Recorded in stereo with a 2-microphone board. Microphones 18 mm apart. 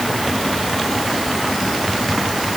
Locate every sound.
Only background noise.